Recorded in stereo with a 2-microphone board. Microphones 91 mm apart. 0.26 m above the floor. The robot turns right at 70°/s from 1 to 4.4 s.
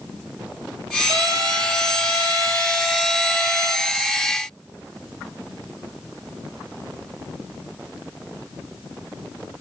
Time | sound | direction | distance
1.1 | a trumpet | 145° right | 4.5 m